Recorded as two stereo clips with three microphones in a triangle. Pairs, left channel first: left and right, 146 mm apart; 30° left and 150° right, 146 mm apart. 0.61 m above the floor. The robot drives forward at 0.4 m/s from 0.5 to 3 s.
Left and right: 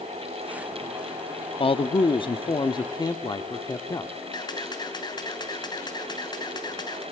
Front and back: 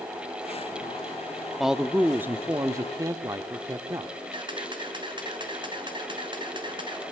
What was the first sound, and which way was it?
A man speaking, 120° left.